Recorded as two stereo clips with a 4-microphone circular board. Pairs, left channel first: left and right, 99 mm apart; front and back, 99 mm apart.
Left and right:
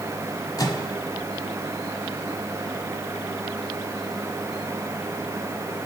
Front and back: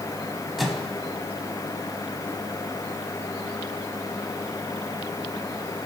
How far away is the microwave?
About 1.4 m.